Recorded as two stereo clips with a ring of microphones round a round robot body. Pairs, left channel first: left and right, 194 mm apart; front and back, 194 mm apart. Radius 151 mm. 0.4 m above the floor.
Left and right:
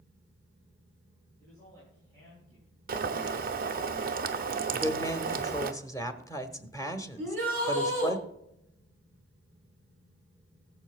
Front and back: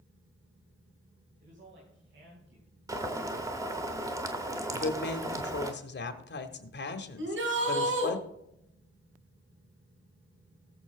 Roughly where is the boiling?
Right.